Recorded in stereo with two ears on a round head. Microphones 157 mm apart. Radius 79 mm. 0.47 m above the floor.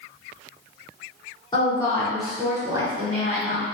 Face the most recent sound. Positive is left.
turn(degrees=-45)  # may be behind; listen again after turning